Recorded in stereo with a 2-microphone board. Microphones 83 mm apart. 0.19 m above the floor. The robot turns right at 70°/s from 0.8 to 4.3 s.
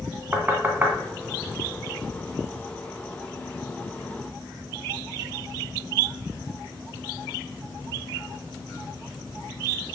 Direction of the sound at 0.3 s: 20° right (ahead or behind).